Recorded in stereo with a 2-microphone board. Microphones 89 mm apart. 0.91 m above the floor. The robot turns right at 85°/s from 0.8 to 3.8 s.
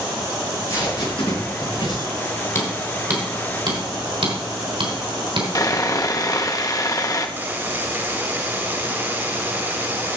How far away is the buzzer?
About 1.5 m.